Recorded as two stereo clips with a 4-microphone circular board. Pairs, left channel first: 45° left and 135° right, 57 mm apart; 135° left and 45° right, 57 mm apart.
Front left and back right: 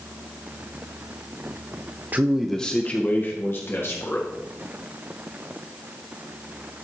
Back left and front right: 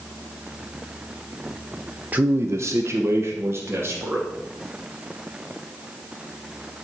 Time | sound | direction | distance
2.1 | a man speaking | 90° right | 0.7 m